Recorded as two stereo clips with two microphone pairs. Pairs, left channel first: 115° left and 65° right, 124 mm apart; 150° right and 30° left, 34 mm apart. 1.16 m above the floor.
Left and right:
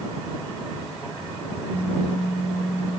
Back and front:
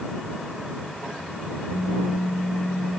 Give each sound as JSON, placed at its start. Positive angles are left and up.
{"t": 1.7, "sound": "a pop", "azimuth_deg": -165}